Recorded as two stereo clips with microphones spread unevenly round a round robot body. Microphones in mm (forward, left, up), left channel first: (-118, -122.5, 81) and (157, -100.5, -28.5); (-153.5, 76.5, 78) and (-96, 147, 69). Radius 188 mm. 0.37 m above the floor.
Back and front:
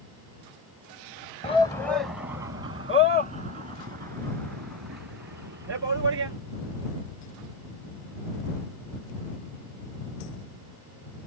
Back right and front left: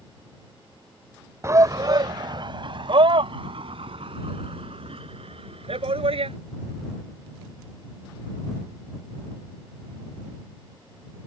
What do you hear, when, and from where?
1.4 s a shout: 100° left; by 6.3 s 60° left